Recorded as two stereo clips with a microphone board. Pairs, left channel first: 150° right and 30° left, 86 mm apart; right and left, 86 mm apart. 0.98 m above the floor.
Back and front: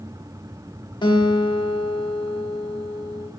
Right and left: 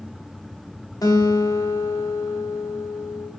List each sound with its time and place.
1.0 s a guitar: 130° right, 0.9 m